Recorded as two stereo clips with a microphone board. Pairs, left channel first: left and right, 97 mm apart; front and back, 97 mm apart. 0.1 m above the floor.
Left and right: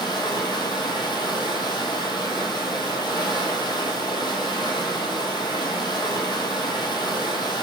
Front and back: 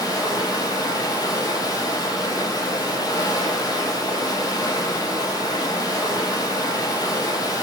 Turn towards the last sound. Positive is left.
turn(degrees=50)